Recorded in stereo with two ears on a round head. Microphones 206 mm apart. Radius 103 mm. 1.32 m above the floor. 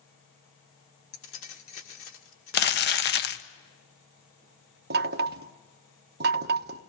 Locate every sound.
1.1 s keys jangling: 60° left (ahead or behind), 2.5 m
2.5 s crumpling: 45° left (ahead or behind), 1.0 m
4.9 s knocking: 45° right (ahead or behind), 1.0 m